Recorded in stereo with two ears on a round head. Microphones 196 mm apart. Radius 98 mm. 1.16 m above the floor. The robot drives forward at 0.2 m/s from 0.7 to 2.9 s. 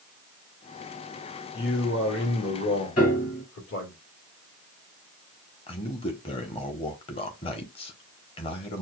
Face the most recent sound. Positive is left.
turn(degrees=25)  # may be behind; listen again after turning